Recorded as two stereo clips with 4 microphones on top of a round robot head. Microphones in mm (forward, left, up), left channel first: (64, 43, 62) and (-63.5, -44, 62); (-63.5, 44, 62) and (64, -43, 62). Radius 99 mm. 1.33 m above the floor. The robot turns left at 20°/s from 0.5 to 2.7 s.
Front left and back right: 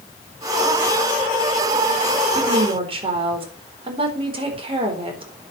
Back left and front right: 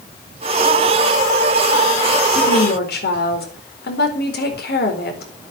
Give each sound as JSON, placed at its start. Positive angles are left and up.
{"t": 2.4, "sound": "a woman speaking", "azimuth_deg": 165, "distance_m": 4.0}